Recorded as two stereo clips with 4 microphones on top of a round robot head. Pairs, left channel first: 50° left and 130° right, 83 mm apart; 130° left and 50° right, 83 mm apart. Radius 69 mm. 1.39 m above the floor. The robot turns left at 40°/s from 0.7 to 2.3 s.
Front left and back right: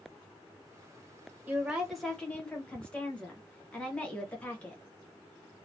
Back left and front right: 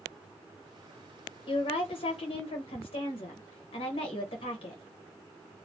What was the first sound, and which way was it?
A woman speaking, 160° left.